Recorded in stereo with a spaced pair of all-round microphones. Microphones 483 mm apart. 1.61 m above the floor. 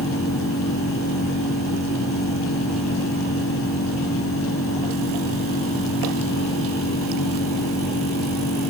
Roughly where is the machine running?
Left.